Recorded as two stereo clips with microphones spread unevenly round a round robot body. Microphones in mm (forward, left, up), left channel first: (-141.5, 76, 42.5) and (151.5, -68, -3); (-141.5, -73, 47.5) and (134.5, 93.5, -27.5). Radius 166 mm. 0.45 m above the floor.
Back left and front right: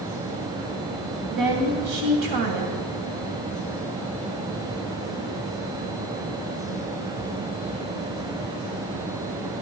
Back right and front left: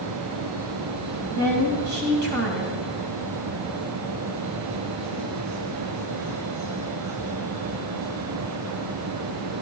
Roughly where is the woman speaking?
Ahead.